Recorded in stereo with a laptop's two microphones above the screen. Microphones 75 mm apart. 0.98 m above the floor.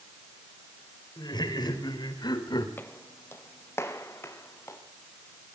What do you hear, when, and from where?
1.2 s laughter: 85° left, 4.5 m; by 2.7 s 80° left, 3.5 m
2.8 s footsteps: 30° left (ahead or behind), 1.2 m; by 4.8 s 35° left (ahead or behind), 3 m